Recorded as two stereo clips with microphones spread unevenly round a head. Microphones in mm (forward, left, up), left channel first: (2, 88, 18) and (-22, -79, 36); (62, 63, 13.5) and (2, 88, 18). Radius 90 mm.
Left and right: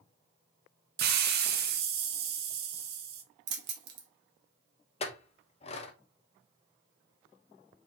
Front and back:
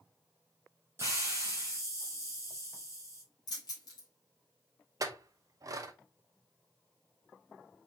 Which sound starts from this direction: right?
Keys jangling, at 3.5 s.